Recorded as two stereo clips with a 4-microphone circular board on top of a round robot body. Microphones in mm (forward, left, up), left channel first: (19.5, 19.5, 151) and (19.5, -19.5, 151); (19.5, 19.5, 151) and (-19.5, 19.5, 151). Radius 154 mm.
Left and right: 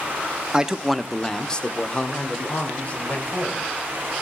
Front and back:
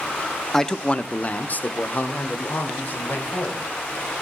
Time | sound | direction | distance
0.5 | a man speaking | 60° right | 0.9 m